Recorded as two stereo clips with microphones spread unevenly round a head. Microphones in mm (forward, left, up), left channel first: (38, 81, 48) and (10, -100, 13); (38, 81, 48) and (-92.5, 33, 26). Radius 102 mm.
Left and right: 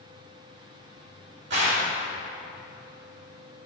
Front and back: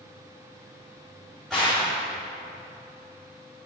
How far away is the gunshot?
About 5 m.